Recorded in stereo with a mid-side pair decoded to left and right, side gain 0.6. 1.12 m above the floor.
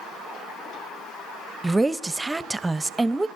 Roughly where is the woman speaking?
Ahead.